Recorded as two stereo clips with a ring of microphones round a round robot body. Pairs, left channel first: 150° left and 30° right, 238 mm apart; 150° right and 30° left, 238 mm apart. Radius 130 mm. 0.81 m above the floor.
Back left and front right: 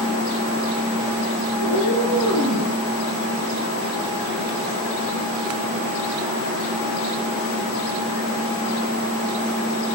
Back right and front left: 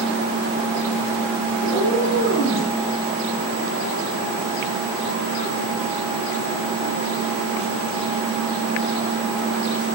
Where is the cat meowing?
80° right, 5.5 m; by 2.7 s 65° right, 6 m.